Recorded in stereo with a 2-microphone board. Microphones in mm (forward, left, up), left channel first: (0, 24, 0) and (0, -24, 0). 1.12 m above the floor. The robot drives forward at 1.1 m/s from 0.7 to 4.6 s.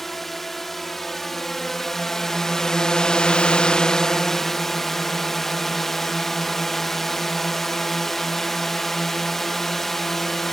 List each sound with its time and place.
0.0 s a drone: 5° left (ahead or behind); by 10.5 s 10° left (ahead or behind)